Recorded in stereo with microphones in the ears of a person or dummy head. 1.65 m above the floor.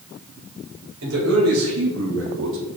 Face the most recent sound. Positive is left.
turn(degrees=-60)  # may be behind; listen again after turning